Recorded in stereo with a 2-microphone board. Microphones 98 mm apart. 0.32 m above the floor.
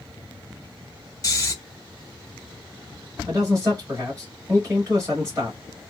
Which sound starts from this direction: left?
Snoring, at 1.2 s.